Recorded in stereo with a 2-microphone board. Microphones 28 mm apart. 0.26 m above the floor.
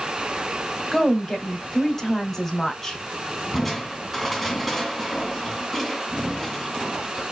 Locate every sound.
0.9 s a woman speaking: 10° left (ahead or behind), 1.7 m
3.5 s crushing: centre (ahead or behind), 2 m